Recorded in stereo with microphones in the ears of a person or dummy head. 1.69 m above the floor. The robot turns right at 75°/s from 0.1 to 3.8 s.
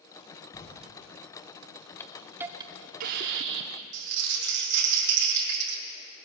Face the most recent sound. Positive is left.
turn(degrees=-70)  # may be behind; listen again after turning